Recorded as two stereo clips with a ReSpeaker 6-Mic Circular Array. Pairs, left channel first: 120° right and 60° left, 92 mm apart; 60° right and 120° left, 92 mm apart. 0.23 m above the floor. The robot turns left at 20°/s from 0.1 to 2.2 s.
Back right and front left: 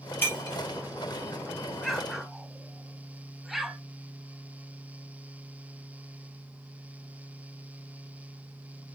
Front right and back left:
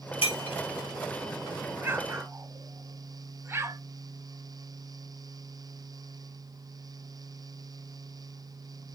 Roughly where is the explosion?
Behind left.